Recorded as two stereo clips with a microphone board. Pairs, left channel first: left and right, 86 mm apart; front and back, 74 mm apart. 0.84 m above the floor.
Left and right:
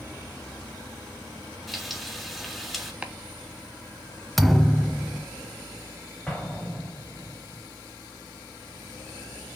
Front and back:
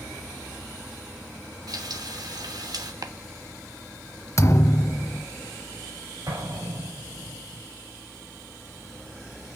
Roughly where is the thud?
Ahead.